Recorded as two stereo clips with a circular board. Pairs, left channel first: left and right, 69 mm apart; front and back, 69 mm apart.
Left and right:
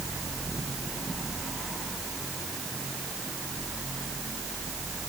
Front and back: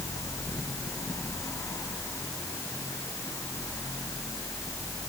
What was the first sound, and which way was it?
Only background noise.